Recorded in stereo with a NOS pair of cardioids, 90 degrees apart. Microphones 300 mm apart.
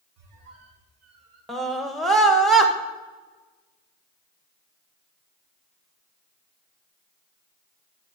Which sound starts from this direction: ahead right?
A squeak, at 0.2 s.